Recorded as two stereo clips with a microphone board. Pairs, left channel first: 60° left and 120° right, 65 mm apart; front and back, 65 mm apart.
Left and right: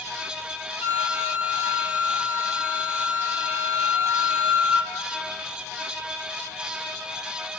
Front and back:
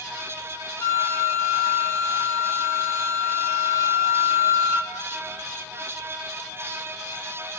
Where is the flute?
55° right, 1.9 m.